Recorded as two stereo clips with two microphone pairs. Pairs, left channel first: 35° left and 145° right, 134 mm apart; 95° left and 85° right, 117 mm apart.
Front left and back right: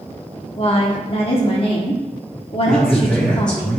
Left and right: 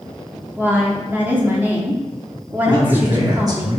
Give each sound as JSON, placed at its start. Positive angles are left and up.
{"t": 0.6, "sound": "a woman speaking", "azimuth_deg": -10, "distance_m": 1.0}
{"t": 2.7, "sound": "a man speaking", "azimuth_deg": -45, "distance_m": 1.1}